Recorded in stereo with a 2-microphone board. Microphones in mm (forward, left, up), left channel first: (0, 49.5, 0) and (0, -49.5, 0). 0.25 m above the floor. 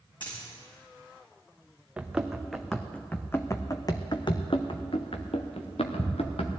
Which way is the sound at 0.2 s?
50° left (ahead or behind).